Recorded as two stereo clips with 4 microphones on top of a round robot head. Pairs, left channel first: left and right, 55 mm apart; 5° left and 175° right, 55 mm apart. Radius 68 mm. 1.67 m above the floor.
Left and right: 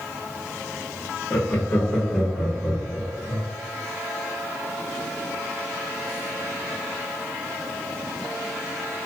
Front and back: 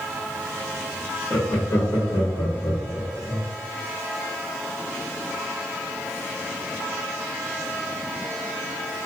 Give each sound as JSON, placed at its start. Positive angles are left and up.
{"t": 1.3, "sound": "laughter", "azimuth_deg": 35, "distance_m": 1.1}